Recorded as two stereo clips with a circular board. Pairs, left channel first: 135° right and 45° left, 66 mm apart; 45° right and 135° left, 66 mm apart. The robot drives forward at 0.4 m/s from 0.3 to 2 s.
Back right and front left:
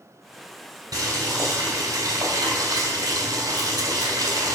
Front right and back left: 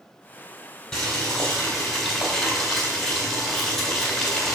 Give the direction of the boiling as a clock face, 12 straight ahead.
11 o'clock.